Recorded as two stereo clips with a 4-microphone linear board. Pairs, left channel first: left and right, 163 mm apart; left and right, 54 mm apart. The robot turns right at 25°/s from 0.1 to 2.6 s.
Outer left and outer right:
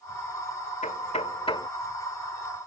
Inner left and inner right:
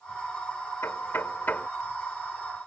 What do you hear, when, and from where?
0.8 s knocking: 50° left (ahead or behind); by 1.7 s 30° left (ahead or behind)